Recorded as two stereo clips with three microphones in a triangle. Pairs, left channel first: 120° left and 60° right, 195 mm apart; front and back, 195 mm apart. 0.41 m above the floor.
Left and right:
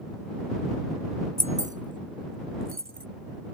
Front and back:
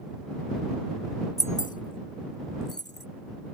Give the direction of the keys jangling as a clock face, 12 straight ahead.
1 o'clock.